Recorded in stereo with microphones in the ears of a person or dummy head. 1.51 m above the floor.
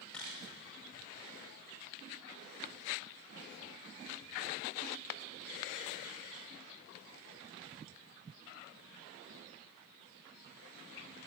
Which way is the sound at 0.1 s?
Centre (ahead or behind).